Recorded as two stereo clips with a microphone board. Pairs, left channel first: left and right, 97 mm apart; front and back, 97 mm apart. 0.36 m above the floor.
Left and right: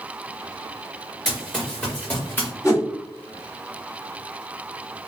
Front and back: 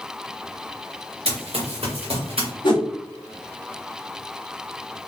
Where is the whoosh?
35° left, 1.1 m.